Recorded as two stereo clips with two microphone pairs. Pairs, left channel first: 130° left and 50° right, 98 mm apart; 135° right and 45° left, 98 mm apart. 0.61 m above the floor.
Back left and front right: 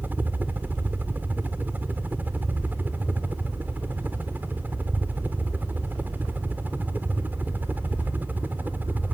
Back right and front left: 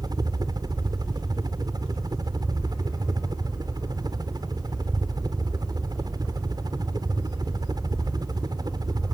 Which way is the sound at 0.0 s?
15° left.